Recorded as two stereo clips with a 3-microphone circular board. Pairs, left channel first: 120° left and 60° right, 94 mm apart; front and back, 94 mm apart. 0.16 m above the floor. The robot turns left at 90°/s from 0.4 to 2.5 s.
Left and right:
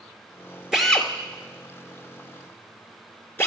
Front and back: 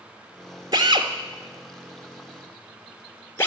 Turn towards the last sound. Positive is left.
turn(degrees=60)